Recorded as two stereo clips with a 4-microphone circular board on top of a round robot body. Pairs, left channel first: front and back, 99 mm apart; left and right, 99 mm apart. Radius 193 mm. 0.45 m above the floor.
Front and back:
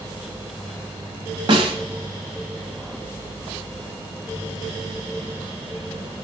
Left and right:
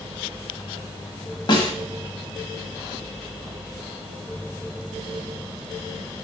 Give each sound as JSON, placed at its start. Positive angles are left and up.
{"t": 1.5, "sound": "a snare drum", "azimuth_deg": 140, "distance_m": 1.3}